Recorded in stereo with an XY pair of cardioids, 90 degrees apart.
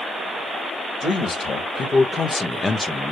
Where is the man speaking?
55° left, 1.8 m; by 3.1 s 5° left, 0.9 m.